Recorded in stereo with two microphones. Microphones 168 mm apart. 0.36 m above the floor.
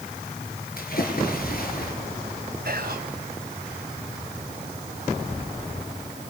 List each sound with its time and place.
0.8 s a splash: 60° left (ahead or behind), 5.5 m
2.6 s whispering: 65° right (ahead or behind), 2 m